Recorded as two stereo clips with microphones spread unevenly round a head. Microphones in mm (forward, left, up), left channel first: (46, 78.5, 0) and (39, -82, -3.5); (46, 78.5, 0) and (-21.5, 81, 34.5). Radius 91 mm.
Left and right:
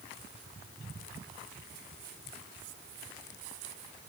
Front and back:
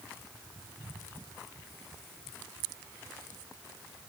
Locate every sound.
Only background noise.